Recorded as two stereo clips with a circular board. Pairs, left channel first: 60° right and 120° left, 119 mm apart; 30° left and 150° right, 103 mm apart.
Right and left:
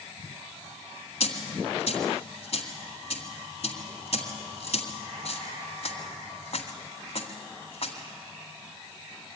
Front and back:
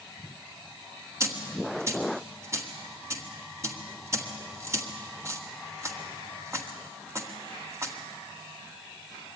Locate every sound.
1.2 s a dropped coin: 90° right, 1.9 m